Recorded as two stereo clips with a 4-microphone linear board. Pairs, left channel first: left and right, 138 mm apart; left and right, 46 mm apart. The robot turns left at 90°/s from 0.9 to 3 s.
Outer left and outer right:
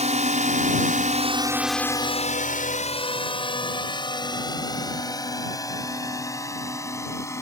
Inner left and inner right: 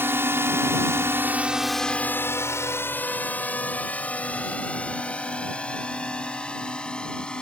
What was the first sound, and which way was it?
A drone, 55° right (ahead or behind).